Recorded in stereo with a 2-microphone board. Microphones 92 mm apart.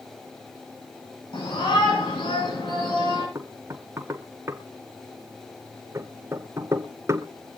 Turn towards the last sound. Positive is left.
turn(degrees=-30)  # may be behind; listen again after turning